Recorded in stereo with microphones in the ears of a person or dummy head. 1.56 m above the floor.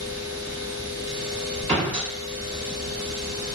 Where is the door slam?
30° right (ahead or behind), 1.3 m.